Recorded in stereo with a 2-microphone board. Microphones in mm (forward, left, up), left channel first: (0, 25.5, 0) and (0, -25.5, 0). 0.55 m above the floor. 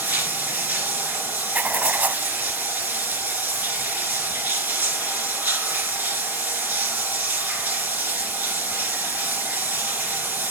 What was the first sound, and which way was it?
Running water, 35° right (ahead or behind).